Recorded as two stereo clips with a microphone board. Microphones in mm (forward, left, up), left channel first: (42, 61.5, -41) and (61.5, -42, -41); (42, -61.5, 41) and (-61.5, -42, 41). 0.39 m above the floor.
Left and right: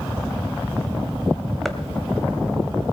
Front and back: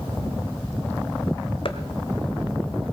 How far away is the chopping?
About 1.2 m.